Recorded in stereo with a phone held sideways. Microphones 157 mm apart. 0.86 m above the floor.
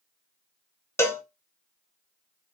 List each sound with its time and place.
1.0 s a cowbell: 15° left (ahead or behind), 0.6 m